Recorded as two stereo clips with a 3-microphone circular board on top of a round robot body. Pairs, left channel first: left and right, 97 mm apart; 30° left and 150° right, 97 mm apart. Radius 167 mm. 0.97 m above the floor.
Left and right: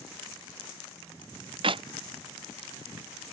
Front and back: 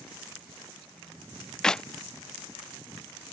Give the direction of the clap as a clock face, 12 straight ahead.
2 o'clock.